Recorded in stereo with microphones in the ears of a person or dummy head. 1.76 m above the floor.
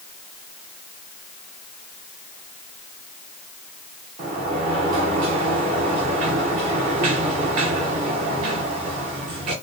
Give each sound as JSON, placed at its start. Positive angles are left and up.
{"t": 4.2, "sound": "a sliding door", "side_deg": -35, "distance_m": 0.9}